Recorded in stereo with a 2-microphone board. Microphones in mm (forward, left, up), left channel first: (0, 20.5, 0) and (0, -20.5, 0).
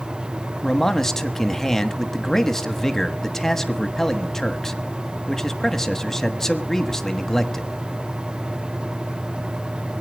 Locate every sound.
0.6 s a man speaking: 10° left (ahead or behind), 1.1 m